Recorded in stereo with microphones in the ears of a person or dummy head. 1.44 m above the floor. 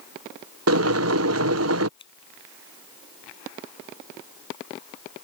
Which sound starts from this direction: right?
Boiling, at 0.7 s.